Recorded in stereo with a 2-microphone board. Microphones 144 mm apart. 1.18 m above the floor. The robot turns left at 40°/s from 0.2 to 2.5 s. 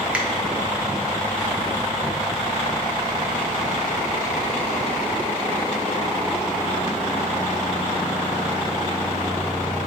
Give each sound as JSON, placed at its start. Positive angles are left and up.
{"t": 0.1, "sound": "a finger snap", "side_deg": -10, "distance_m": 1.0}